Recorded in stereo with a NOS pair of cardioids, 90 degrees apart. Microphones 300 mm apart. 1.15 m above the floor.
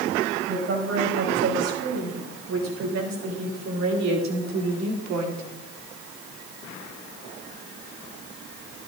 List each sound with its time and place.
0.5 s a woman speaking: 55° right, 5.5 m; by 5.4 s 75° right, 2 m